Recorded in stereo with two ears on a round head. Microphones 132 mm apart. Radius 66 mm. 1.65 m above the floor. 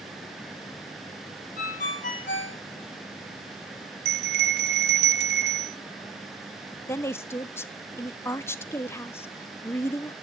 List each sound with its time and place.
1.6 s a ringtone: 60° left (ahead or behind), 2.5 m
4.0 s a bell: 85° right, 0.8 m
6.9 s a woman speaking: 20° left (ahead or behind), 0.7 m